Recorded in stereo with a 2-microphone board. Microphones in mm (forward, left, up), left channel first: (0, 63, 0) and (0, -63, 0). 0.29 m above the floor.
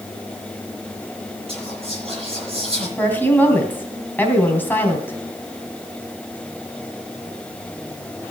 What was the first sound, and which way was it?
Whispering, 50° right (ahead or behind).